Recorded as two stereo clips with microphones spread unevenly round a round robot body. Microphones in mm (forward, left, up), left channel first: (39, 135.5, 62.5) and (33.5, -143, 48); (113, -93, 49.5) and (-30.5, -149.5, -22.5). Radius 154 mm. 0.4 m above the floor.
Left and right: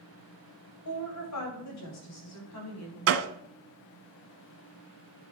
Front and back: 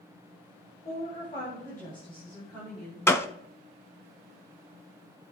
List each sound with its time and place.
0.8 s a woman speaking: 95° left, 2.5 m; by 3.0 s 125° left, 4.5 m
3.1 s a gunshot: 50° right, 0.7 m